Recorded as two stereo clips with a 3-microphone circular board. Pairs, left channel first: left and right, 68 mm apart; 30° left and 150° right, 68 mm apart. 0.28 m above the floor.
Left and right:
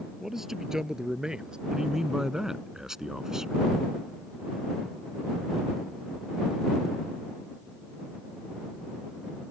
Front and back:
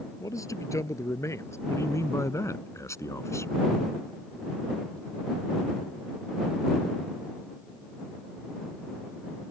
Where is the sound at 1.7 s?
10° right.